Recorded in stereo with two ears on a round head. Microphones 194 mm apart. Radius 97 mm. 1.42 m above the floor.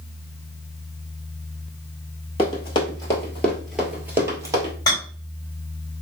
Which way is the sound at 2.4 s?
25° left (ahead or behind).